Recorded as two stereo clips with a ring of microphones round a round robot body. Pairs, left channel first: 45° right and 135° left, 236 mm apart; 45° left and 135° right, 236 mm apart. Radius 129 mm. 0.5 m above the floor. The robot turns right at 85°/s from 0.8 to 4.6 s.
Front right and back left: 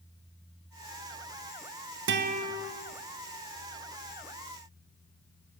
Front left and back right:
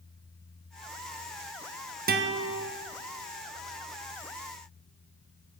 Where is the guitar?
175° left, 1.1 m; by 2.7 s 135° right, 1.1 m.